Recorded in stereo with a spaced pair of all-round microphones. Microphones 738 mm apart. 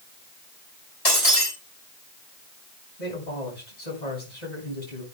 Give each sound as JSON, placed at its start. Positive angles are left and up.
{"t": 1.1, "sound": "breaking glass", "side_deg": 60, "distance_m": 6.5}
{"t": 3.0, "sound": "a man speaking", "side_deg": 85, "distance_m": 7.5}